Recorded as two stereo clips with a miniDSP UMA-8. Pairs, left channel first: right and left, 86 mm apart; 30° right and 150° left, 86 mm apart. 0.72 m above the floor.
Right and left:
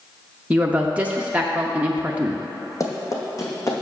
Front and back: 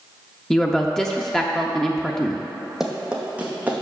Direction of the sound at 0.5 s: 45° left.